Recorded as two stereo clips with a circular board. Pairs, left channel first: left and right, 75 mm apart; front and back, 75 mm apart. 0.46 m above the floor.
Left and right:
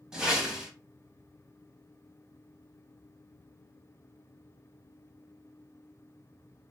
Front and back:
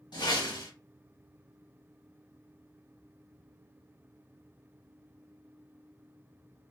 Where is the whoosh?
10° right, 0.9 m.